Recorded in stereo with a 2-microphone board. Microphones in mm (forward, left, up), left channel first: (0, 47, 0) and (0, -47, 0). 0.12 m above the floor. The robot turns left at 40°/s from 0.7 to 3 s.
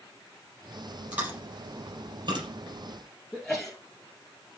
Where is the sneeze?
Centre (ahead or behind), 1.8 m.